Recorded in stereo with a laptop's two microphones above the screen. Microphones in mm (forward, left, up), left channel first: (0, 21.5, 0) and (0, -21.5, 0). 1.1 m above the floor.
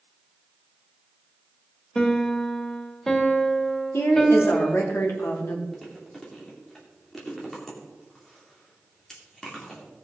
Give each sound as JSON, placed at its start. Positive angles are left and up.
{"t": 1.9, "sound": "a piano", "side_deg": 15, "distance_m": 1.5}
{"t": 3.9, "sound": "a woman speaking", "side_deg": 65, "distance_m": 2.5}
{"t": 5.7, "sound": "chewing", "side_deg": 10, "distance_m": 2.5}